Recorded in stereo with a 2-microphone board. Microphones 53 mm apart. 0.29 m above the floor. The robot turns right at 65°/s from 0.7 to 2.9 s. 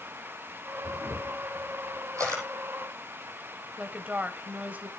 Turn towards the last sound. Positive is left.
turn(degrees=-30)  # may be behind; listen again after turning